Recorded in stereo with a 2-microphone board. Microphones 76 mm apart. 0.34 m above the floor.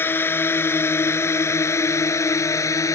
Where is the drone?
30° left (ahead or behind); by 3.0 s 45° left (ahead or behind).